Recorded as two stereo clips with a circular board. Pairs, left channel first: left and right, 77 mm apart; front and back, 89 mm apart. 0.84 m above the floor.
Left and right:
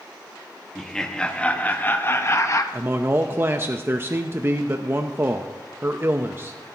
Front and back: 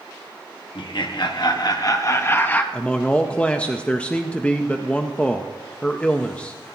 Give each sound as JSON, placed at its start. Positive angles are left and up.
{"t": 0.8, "sound": "laughter", "azimuth_deg": 5, "distance_m": 1.4}
{"t": 2.7, "sound": "a man speaking", "azimuth_deg": -65, "distance_m": 0.6}